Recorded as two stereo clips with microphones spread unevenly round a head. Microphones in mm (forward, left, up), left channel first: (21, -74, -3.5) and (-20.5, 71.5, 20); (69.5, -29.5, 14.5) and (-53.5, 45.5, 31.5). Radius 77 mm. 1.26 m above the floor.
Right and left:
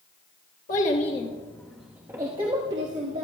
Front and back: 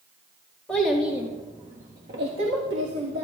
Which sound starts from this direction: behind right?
A child speaking, at 0.7 s.